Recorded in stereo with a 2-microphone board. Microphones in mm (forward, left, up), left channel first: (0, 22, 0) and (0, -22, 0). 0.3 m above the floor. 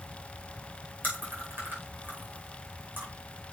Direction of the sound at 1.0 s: 40° right (ahead or behind).